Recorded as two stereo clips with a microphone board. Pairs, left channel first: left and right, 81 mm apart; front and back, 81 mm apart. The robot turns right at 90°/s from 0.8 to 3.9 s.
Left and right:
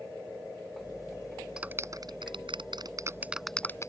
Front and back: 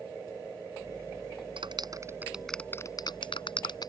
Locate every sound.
1.6 s a clap: 170° right; by 3.9 s 40° left